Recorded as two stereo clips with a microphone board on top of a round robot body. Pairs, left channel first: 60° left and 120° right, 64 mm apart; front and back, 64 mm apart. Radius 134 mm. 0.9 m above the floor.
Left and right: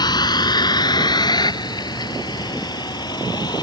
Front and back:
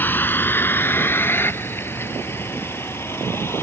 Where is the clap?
I don't hear a clap.